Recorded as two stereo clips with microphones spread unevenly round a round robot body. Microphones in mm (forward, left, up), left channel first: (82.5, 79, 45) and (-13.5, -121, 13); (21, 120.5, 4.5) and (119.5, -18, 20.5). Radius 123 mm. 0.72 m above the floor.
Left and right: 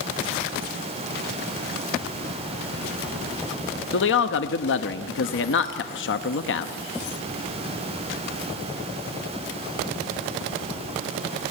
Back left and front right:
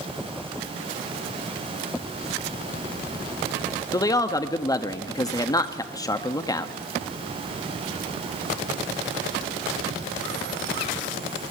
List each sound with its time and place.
3.9 s a man speaking: 70° left, 1.0 m